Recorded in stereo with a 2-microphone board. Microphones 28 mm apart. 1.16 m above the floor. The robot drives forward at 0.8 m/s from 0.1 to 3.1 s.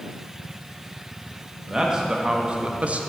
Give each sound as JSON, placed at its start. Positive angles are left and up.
{"t": 1.7, "sound": "a man speaking", "side_deg": -20, "distance_m": 1.3}